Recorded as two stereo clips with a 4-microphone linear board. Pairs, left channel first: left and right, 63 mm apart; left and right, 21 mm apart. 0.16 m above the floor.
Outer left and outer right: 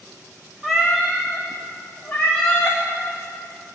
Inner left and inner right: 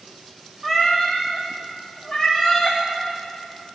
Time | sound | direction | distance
0.6 | a cat meowing | centre (ahead or behind) | 2.5 m